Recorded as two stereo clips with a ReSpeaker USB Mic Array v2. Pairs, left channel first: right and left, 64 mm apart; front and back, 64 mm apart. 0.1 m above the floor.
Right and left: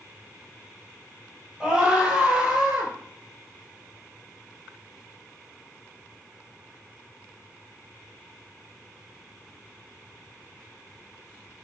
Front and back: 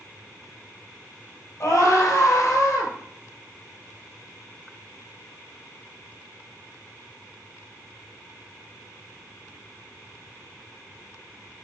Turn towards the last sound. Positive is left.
turn(degrees=20)